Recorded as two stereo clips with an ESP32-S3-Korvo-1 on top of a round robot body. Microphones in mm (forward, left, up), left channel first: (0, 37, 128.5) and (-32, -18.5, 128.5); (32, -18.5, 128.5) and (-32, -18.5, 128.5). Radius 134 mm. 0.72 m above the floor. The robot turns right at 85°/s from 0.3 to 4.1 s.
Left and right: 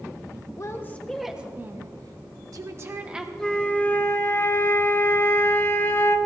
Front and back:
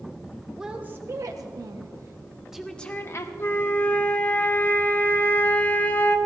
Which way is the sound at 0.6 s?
95° left.